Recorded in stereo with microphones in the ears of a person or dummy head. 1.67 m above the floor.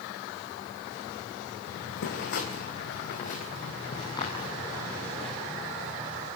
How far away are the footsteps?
About 4 m.